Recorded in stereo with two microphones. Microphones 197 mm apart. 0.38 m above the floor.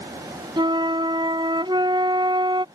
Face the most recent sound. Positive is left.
turn(degrees=-20)  # may be behind; listen again after turning